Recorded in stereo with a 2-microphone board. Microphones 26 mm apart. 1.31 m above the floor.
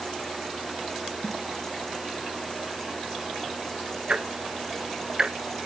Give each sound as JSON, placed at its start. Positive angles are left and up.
{"t": 1.2, "sound": "a snare drum", "side_deg": 50, "distance_m": 4.0}
{"t": 4.1, "sound": "ticking", "side_deg": -40, "distance_m": 0.6}